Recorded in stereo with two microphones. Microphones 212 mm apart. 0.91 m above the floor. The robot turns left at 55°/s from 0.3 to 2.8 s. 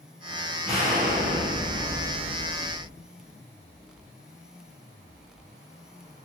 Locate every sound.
0.7 s an explosion: 30° right, 1.5 m; by 2.9 s 145° right, 1.5 m